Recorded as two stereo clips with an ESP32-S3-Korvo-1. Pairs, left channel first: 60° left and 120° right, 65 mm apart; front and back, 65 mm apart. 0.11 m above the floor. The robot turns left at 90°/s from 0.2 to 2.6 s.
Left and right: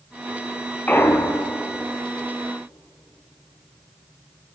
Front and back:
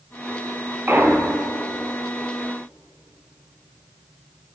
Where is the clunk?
125° left, 0.8 m; by 1.6 s 60° left, 0.8 m.